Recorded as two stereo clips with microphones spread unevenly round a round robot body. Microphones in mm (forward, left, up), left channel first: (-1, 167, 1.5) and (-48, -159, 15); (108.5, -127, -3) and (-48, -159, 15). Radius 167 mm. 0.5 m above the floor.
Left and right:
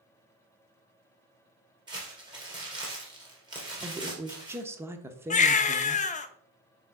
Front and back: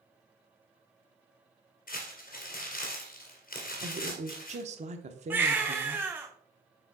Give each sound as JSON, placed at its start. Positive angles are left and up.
{"t": 1.9, "sound": "crumpling", "azimuth_deg": -20, "distance_m": 2.5}
{"t": 3.8, "sound": "a woman speaking", "azimuth_deg": 180, "distance_m": 0.7}
{"t": 5.3, "sound": "a baby crying", "azimuth_deg": 110, "distance_m": 0.5}